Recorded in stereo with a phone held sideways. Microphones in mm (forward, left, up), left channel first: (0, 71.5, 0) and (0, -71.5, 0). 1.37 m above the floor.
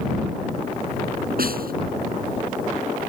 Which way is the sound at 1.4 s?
80° right.